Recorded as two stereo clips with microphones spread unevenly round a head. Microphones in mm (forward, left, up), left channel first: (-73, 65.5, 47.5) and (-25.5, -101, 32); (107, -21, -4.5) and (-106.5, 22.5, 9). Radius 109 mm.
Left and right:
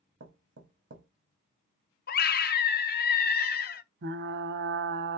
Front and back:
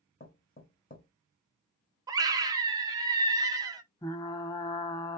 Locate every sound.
0.2 s knocking: 65° right, 1.5 m
2.1 s a scream: 95° left, 0.9 m
4.0 s frying: 85° right, 0.6 m